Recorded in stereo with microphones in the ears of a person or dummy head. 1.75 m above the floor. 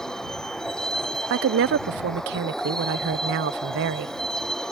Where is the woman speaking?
60° right (ahead or behind).